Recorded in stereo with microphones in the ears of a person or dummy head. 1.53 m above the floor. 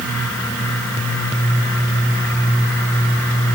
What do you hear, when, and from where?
Only background noise.